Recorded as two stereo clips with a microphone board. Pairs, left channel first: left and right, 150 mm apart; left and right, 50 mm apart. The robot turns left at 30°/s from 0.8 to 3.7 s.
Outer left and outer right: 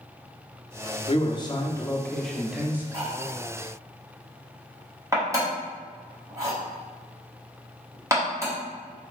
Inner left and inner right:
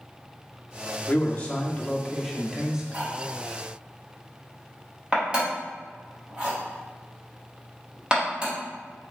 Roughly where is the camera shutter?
No camera shutter in this recording.